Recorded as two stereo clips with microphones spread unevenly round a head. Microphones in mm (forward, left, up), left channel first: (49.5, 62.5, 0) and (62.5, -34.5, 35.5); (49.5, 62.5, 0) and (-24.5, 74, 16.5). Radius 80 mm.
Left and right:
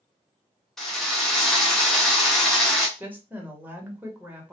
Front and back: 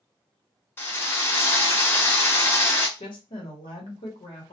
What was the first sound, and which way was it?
A drill, 55° right.